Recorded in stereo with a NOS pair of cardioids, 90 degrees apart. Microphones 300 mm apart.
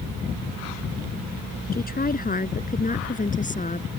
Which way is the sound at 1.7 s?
30° left.